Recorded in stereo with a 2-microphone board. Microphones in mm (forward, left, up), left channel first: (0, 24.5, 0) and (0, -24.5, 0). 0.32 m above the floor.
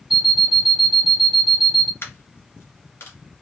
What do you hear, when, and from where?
0.1 s an alarm clock: 5° right (ahead or behind), 0.9 m
2.0 s a dropped coin: 55° left (ahead or behind), 1.9 m